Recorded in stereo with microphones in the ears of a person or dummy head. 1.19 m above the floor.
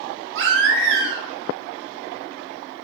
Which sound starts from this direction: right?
A baby crying, at 0.3 s.